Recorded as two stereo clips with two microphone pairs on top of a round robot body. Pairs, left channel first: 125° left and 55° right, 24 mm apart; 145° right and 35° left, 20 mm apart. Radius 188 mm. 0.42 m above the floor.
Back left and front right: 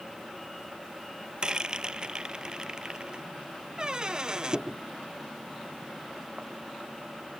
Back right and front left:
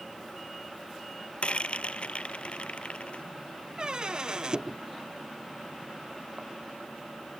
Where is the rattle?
110° right.